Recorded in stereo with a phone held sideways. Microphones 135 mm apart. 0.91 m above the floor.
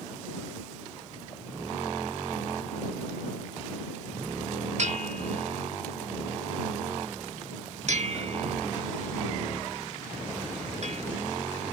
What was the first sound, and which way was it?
A bell, 55° right (ahead or behind).